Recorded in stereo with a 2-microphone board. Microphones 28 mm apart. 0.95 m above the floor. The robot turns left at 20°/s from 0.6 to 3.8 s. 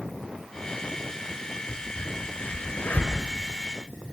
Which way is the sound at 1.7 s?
55° left (ahead or behind).